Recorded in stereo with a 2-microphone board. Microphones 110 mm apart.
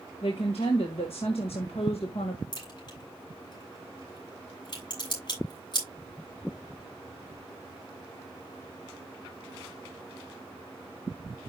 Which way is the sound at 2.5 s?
45° left (ahead or behind).